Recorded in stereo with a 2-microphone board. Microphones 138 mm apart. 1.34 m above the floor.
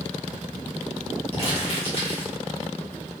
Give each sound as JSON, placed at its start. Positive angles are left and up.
{"t": 1.3, "sound": "crumpling", "side_deg": 45, "distance_m": 1.4}